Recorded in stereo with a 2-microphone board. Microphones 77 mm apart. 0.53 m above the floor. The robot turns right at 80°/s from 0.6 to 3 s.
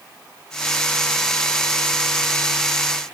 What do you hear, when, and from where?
Only background noise.